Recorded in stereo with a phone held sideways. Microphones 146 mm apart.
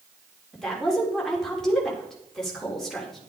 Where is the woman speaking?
5° left (ahead or behind), 3.5 m.